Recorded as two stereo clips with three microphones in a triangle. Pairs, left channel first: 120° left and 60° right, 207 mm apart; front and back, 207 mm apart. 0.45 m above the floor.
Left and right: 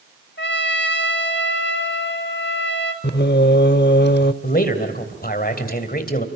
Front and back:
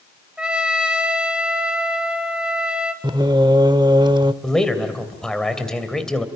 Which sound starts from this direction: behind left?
Singing, at 3.0 s.